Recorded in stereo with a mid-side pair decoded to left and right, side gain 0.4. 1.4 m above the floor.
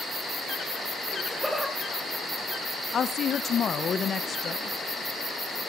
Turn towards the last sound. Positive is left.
turn(degrees=55)